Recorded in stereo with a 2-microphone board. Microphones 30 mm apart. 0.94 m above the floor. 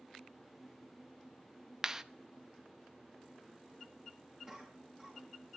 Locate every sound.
1.8 s a clap: 15° right (ahead or behind), 0.7 m
4.5 s a cough: 20° right (ahead or behind), 7.5 m